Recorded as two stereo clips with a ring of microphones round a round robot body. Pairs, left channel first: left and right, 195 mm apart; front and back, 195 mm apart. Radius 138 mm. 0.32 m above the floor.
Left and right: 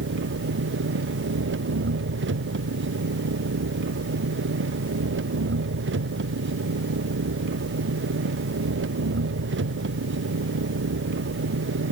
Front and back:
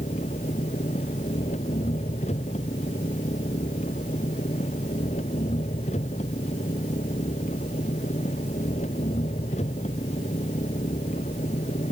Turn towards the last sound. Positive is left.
turn(degrees=-70)